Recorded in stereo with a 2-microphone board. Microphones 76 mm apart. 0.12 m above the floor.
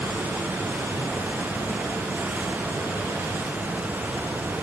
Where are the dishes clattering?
I don't hear dishes clattering.